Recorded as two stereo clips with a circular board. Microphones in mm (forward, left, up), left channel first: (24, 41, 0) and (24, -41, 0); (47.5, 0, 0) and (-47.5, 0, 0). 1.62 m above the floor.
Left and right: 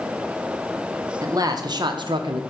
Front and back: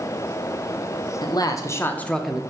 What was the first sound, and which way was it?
A man speaking, 45° right.